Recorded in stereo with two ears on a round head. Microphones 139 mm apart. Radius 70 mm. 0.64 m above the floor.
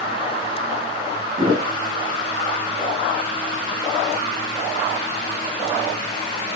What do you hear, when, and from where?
1.4 s a thud: 35° right (ahead or behind), 3.5 m